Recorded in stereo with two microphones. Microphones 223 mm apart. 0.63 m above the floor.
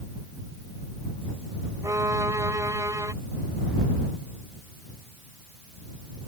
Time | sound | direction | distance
1.8 | a violin | 15° right (ahead or behind) | ?